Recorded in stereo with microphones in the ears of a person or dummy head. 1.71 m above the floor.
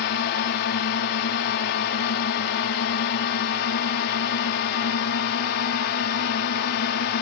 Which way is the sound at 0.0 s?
60° left (ahead or behind).